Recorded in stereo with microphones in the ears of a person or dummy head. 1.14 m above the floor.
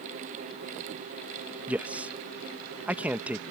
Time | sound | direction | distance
1.7 | a man speaking | 10° right (ahead or behind) | ?